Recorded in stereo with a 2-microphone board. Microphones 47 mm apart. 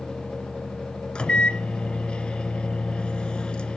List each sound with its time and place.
1.1 s a microwave: 25° left (ahead or behind), 1.2 m